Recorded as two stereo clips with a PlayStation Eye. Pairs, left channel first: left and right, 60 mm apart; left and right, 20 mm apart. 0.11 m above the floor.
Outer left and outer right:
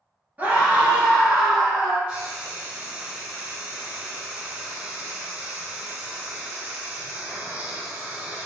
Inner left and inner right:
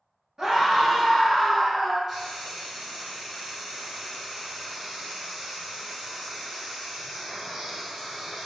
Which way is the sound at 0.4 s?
25° right (ahead or behind).